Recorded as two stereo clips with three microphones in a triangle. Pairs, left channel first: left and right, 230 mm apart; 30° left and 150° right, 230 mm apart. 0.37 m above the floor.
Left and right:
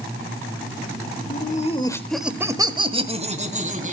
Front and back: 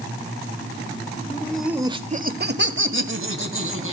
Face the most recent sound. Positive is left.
turn(degrees=-145)